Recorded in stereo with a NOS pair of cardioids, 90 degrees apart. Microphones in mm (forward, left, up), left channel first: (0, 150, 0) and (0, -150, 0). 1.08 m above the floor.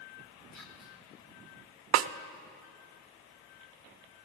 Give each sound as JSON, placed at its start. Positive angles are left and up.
{"t": 0.5, "sound": "whispering", "azimuth_deg": 65, "distance_m": 2.5}
{"t": 1.9, "sound": "a snare drum", "azimuth_deg": -60, "distance_m": 0.5}